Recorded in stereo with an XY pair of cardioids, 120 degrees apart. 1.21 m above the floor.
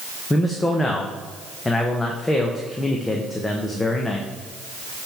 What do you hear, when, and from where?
0.3 s a man speaking: 15° left, 0.9 m